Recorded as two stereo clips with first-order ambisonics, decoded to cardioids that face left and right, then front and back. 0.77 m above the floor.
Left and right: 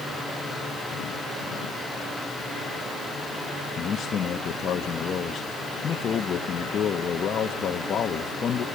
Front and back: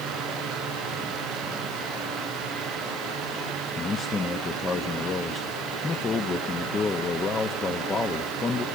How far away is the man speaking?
About 0.7 m.